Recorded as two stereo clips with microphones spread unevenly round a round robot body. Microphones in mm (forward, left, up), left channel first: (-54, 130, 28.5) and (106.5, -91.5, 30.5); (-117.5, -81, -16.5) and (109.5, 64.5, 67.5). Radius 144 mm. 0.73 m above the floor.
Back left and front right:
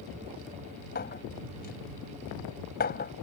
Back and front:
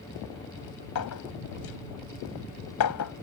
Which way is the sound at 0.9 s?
175° right.